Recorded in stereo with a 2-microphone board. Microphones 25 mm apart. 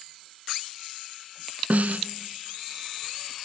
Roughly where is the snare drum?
Right.